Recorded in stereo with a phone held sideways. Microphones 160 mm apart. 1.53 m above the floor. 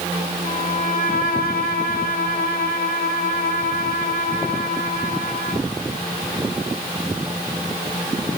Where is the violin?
70° left (ahead or behind), 5.5 m.